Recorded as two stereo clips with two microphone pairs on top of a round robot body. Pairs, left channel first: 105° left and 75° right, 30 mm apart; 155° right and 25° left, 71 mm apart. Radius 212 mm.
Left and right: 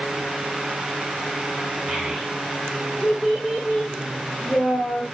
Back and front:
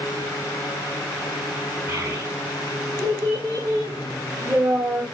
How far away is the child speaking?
About 2 m.